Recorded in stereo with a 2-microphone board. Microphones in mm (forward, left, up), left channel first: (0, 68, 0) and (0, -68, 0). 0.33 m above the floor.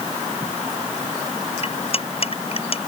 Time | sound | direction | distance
1.6 | cutlery clinking | 45° left (ahead or behind) | ?